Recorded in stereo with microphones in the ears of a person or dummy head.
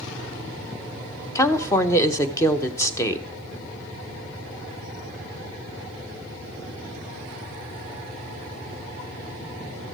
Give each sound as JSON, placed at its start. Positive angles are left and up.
{"t": 1.4, "sound": "a woman speaking", "side_deg": 20, "distance_m": 0.8}